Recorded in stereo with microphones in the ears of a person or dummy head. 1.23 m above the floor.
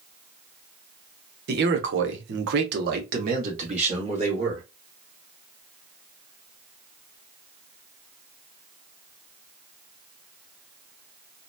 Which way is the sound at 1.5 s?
50° right (ahead or behind).